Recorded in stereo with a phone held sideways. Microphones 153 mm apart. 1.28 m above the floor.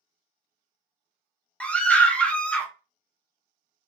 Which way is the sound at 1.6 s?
10° left (ahead or behind).